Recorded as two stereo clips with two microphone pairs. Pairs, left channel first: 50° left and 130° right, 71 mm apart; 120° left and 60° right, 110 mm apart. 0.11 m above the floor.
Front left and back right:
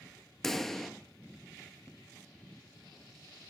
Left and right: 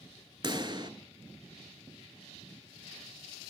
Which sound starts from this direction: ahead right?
A pop, at 0.4 s.